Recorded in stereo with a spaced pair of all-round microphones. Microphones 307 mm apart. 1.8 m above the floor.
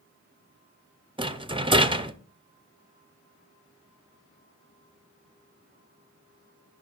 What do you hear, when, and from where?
1.2 s a rattle: 15° right (ahead or behind), 0.7 m